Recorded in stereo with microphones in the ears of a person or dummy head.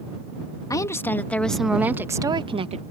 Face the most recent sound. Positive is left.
turn(degrees=-40)  # may be behind; listen again after turning